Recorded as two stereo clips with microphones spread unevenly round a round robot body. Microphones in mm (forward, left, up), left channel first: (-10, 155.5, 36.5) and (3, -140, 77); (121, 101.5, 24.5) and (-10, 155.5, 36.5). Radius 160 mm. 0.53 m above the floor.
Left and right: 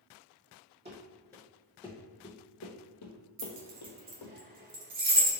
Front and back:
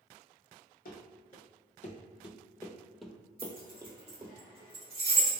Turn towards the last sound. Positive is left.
turn(degrees=-150)